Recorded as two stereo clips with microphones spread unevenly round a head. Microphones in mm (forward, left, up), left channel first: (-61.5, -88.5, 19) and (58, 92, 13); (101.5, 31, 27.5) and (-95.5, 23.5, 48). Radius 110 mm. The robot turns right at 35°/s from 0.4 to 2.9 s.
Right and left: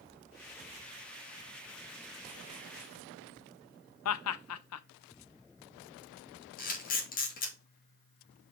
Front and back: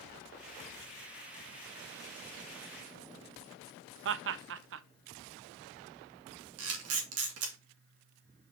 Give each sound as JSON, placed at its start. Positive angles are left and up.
{"t": 4.0, "sound": "laughter", "azimuth_deg": -145, "distance_m": 0.6}
{"t": 6.6, "sound": "a camera shutter", "azimuth_deg": 180, "distance_m": 2.0}